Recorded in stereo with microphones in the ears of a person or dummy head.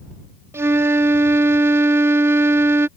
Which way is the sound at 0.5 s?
10° right (ahead or behind).